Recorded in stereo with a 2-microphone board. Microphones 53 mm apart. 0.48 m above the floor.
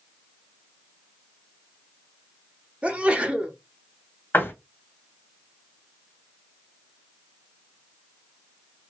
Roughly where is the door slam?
Left.